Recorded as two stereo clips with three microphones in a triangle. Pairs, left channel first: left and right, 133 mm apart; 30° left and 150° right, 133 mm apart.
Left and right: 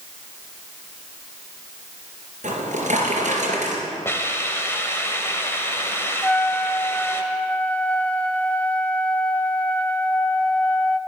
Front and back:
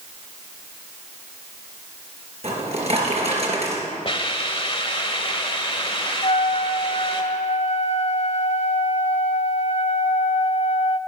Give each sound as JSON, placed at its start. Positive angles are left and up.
{"t": 2.4, "sound": "a drawer", "azimuth_deg": -115, "distance_m": 3.0}
{"t": 4.0, "sound": "a hiss", "azimuth_deg": 30, "distance_m": 1.3}
{"t": 6.2, "sound": "a trumpet", "azimuth_deg": 15, "distance_m": 0.7}